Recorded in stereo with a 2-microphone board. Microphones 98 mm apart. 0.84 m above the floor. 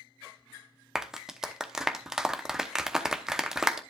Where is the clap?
5° right (ahead or behind), 0.8 m.